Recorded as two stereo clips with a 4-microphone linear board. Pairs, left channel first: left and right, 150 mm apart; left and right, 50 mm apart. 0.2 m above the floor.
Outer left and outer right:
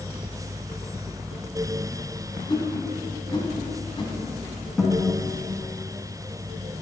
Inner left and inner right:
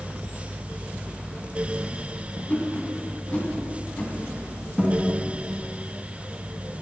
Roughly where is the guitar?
Centre.